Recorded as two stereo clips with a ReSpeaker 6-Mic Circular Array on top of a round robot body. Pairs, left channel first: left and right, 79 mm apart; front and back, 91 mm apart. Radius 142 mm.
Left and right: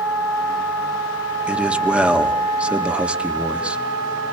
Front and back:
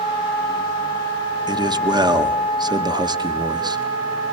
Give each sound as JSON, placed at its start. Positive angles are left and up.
{"t": 1.5, "sound": "a man speaking", "azimuth_deg": -160, "distance_m": 1.9}